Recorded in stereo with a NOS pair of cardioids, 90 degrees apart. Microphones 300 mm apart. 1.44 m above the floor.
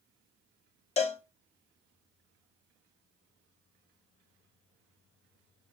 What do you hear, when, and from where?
1.0 s a cowbell: 20° left, 0.7 m